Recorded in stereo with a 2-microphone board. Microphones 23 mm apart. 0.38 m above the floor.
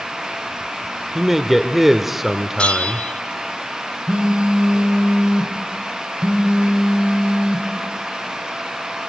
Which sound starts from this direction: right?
A phone buzzing, at 4.1 s.